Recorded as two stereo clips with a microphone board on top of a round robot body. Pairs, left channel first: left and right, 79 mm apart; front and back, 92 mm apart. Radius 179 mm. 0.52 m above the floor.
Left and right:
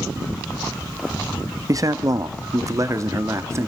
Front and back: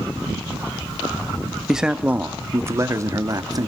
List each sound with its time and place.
1.7 s a man speaking: 95° right, 1.3 m; by 3.7 s 140° right, 2.0 m